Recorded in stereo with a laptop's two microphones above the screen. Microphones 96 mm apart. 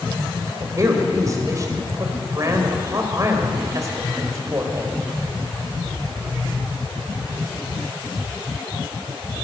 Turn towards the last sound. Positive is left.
turn(degrees=-35)  # may be behind; listen again after turning